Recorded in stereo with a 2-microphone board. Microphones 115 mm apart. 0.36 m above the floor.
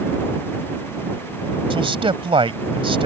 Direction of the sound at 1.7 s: 50° right (ahead or behind).